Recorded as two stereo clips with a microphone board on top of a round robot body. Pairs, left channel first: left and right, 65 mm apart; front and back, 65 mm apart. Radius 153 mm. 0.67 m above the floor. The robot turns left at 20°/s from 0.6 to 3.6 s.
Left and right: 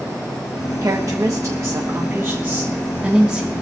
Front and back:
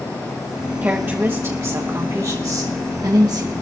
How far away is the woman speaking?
About 1.2 m.